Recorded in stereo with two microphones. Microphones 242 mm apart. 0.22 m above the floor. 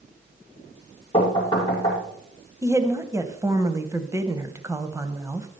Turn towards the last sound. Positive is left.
turn(degrees=-15)  # may be behind; listen again after turning